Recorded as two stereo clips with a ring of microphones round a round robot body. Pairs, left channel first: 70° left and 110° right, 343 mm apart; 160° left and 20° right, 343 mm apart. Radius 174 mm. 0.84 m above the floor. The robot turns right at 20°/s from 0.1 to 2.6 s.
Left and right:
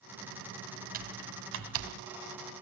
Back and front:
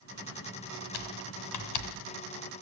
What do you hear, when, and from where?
0.9 s typing on a keyboard: straight behind, 1.8 m; by 2.1 s 155° right, 1.8 m